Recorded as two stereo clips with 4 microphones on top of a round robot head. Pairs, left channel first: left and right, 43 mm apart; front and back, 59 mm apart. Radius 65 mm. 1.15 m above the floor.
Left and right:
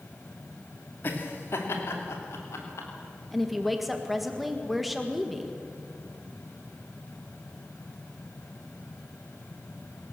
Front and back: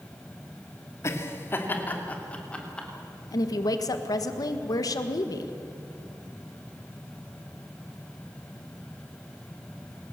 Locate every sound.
1.0 s laughter: 45° left, 2.5 m; by 2.9 s 75° left, 3.5 m
3.3 s a woman speaking: straight ahead, 1.6 m